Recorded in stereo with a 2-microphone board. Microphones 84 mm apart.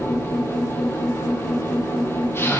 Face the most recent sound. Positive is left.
turn(degrees=30)  # may be behind; listen again after turning